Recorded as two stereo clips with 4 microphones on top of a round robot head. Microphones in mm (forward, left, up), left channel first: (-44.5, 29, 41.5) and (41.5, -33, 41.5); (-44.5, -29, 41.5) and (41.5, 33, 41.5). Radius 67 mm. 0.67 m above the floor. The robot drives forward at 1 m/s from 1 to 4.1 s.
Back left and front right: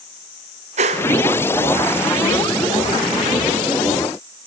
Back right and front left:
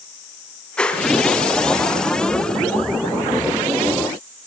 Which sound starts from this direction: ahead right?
A whoosh, at 0.8 s.